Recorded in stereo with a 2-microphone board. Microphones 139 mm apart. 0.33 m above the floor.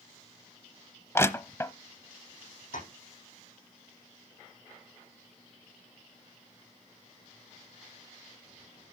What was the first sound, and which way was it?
Crushing, 20° left (ahead or behind).